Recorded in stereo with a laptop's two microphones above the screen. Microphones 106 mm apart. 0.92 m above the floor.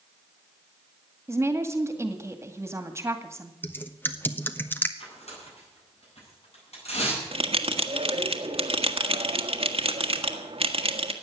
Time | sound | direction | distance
1.3 | a woman speaking | 25° right (ahead or behind) | 1.9 m
3.6 | typing on a keyboard | 20° left (ahead or behind) | 1.1 m
5.0 | tearing paper | 80° left | 10 m
7.3 | a bell | 65° right (ahead or behind) | 1.5 m